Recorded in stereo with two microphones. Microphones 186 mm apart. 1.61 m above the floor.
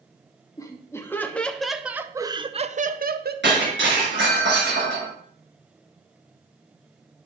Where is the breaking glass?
80° right, 6.5 m.